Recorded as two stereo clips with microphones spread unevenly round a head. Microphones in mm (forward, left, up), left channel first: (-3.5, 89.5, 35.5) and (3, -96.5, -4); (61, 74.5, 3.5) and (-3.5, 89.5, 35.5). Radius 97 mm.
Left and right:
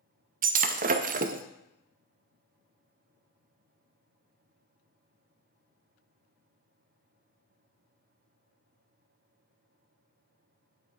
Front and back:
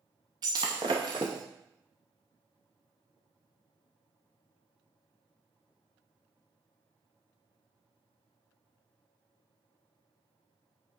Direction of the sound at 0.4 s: 140° right.